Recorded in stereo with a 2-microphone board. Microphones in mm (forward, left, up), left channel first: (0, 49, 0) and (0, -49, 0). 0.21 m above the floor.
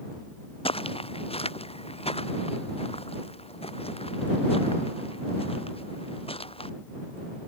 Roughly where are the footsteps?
Left.